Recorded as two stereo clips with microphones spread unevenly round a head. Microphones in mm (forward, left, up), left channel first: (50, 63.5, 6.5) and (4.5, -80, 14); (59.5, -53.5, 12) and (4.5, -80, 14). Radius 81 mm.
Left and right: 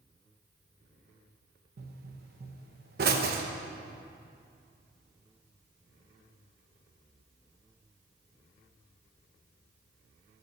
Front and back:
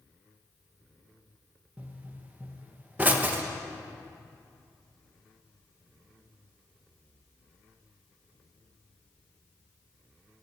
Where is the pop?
90° right, 1.1 m.